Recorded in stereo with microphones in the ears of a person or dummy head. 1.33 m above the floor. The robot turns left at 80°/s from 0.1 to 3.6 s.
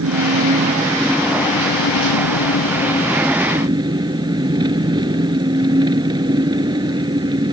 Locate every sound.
0.0 s an engine running: 100° right; by 7.5 s 20° right